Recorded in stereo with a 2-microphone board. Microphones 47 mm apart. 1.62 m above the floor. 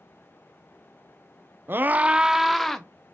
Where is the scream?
50° right (ahead or behind), 0.5 m; by 2.9 s 10° left (ahead or behind), 0.8 m.